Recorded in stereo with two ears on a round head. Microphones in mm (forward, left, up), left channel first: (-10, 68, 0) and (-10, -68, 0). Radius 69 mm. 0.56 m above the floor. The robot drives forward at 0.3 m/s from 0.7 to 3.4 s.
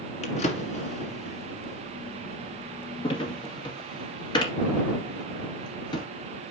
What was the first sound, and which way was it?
A drawer, 50° left (ahead or behind).